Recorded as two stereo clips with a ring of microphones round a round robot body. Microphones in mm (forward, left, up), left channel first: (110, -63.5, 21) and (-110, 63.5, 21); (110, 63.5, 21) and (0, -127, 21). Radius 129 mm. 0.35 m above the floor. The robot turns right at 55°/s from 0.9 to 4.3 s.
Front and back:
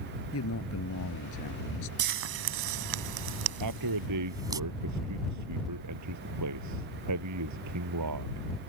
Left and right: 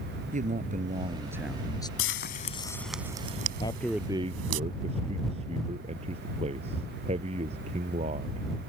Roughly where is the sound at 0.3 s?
Ahead right.